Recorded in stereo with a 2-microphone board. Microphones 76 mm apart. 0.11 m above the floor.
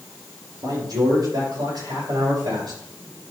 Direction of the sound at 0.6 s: 60° right (ahead or behind).